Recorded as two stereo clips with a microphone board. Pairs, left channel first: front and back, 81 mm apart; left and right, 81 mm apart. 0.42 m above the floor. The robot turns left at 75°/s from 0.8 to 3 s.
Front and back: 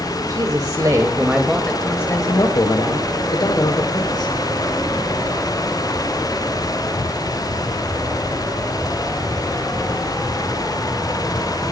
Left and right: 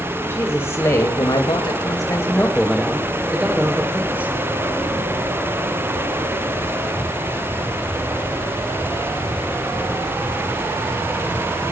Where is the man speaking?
145° left, 2 m; by 4.3 s 20° right, 2 m.